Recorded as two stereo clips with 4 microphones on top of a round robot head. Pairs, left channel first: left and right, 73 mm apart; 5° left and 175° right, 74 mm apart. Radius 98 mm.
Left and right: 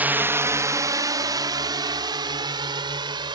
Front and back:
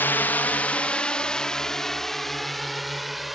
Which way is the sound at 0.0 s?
40° right.